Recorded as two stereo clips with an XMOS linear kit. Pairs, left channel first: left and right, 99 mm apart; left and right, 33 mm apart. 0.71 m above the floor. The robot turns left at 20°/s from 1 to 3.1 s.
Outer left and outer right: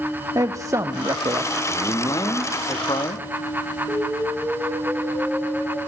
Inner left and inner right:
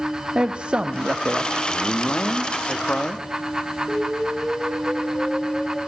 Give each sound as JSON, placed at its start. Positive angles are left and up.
{"t": 0.3, "sound": "a man speaking", "side_deg": -35, "distance_m": 1.1}
{"t": 1.7, "sound": "a man speaking", "side_deg": 45, "distance_m": 1.5}
{"t": 3.9, "sound": "an explosion", "side_deg": -15, "distance_m": 8.5}